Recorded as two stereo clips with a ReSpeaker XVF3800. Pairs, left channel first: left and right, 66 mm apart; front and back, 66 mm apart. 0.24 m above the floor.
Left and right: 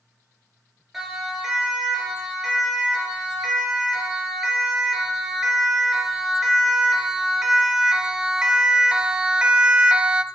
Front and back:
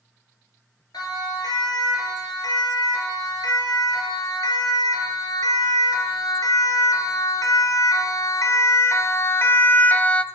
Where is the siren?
5° right, 5.5 m; by 10.2 s 40° right, 1.0 m.